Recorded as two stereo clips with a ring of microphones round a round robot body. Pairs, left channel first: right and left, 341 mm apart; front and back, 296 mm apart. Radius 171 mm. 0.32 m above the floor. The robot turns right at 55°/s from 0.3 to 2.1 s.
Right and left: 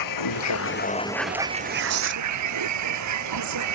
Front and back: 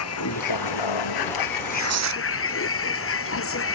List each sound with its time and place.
0.0 s a vehicle: 55° right; by 3.8 s 45° left
1.5 s tearing paper: 120° left; by 2.2 s 150° left